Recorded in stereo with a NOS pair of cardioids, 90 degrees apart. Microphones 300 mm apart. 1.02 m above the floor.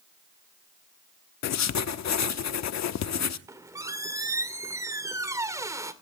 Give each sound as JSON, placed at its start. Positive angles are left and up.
{"t": 1.4, "sound": "writing", "azimuth_deg": 65, "distance_m": 1.0}
{"t": 3.5, "sound": "a squeak", "azimuth_deg": -10, "distance_m": 2.0}